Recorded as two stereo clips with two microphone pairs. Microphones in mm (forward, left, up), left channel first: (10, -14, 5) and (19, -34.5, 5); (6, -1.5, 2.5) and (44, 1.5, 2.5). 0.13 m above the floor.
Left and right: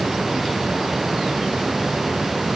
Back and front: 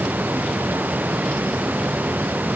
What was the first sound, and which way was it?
Only background noise.